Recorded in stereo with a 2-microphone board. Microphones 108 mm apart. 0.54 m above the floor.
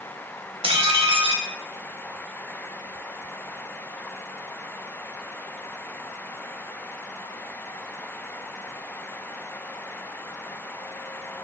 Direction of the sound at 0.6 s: 55° right (ahead or behind).